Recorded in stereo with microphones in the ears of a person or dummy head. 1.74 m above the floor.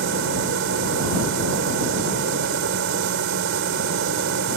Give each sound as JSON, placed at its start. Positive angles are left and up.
{"t": 0.0, "sound": "a machine running", "side_deg": -75}